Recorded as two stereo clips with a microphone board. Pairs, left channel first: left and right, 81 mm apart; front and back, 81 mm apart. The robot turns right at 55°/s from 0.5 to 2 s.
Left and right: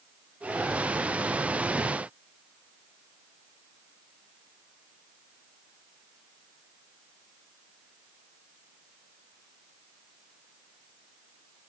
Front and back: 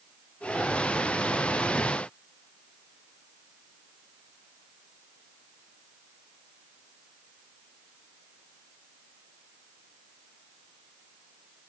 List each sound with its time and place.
Only background noise.